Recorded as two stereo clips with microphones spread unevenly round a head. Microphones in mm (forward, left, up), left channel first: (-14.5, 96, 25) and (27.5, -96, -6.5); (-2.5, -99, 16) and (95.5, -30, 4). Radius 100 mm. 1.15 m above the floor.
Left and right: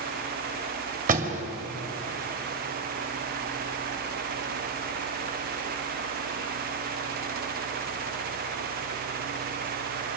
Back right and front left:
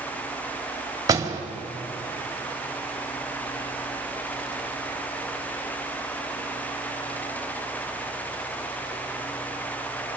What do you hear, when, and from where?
1.1 s a door slam: 25° right, 2.0 m